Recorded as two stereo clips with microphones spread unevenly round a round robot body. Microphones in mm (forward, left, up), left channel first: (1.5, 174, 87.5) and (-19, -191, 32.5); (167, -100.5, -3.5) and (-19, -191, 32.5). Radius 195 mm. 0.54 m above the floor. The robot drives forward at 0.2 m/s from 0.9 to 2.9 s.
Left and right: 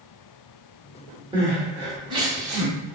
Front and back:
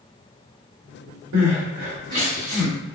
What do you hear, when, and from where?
1.3 s crying: 170° right, 0.8 m; by 3.0 s 175° right, 1.1 m